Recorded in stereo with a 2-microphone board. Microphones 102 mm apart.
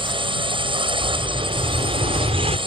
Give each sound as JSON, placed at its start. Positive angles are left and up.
{"t": 0.0, "sound": "a drone", "side_deg": -55}
{"t": 1.0, "sound": "an explosion", "side_deg": -85}